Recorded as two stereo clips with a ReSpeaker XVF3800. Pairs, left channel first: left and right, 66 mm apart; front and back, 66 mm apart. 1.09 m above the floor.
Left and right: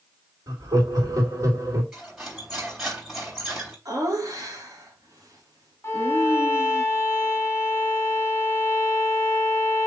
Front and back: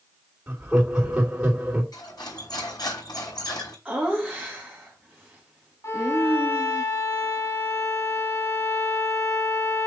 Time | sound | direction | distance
0.5 | laughter | 110° right | 3 m
1.9 | cutlery clinking | 5° right | 3.5 m
3.9 | laughter | 110° right | 1.8 m
5.8 | a violin | 35° left | 1.8 m